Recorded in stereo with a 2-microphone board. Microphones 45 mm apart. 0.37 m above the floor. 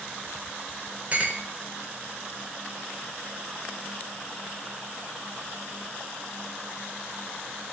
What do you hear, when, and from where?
1.1 s a clink: 35° right (ahead or behind), 0.5 m